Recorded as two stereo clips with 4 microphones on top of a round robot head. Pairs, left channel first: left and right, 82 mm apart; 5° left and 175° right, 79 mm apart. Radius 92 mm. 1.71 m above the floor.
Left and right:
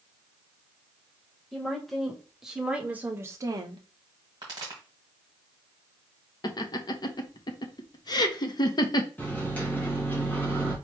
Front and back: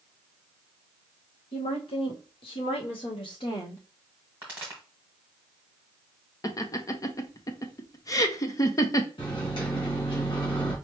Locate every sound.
1.5 s a woman speaking: 5° left, 1.9 m; by 3.8 s 70° right, 0.8 m
4.4 s a pop: 105° right, 1.5 m
6.4 s laughter: 55° left, 0.9 m
9.2 s a microwave: 20° left, 2 m